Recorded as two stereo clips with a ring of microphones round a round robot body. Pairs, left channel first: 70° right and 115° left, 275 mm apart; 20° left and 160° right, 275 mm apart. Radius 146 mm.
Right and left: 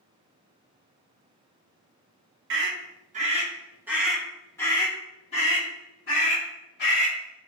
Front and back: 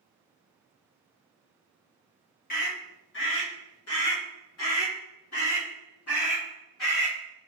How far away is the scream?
About 1.3 m.